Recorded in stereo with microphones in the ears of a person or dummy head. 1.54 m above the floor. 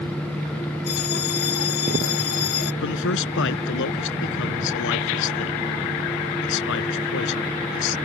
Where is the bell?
55° left (ahead or behind).